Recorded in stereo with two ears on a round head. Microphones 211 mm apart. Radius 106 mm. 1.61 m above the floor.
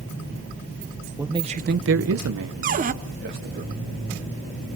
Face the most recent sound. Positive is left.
turn(degrees=-35)  # may be behind; listen again after turning